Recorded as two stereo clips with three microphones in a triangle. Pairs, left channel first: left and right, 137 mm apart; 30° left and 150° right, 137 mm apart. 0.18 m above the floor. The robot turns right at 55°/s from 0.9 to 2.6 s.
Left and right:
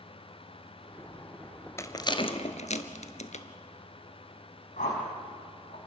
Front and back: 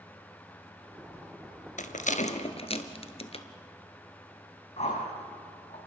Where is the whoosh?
70° left, 5.5 m.